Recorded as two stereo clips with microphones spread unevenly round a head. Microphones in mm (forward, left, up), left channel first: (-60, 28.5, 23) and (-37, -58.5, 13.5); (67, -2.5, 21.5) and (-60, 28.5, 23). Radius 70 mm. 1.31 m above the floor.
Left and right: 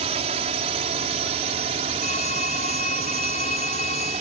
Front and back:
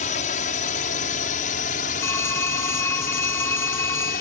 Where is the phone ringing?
60° left.